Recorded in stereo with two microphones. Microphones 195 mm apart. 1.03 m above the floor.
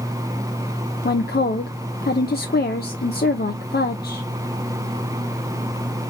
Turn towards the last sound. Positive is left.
turn(degrees=55)  # may be behind; listen again after turning